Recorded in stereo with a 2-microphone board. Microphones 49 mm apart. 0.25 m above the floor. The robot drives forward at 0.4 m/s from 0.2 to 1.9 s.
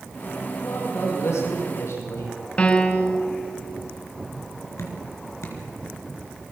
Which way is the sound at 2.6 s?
25° left (ahead or behind).